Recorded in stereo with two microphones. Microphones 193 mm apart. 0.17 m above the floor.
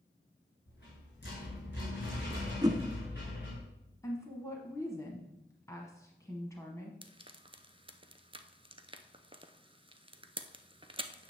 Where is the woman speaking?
15° left (ahead or behind), 1.2 m.